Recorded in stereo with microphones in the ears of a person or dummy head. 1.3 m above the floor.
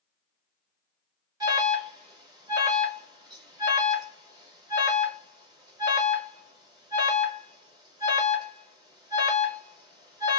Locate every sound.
1.4 s an alarm: 20° right (ahead or behind), 1.3 m